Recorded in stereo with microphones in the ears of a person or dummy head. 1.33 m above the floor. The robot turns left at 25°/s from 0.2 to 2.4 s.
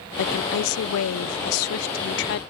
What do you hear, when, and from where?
0.2 s a woman speaking: 115° left; by 2.4 s 60° left